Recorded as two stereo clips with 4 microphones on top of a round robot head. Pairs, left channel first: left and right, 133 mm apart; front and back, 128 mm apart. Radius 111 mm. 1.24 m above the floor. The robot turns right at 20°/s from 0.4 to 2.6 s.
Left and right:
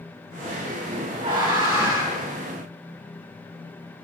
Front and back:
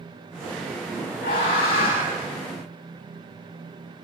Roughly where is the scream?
Ahead.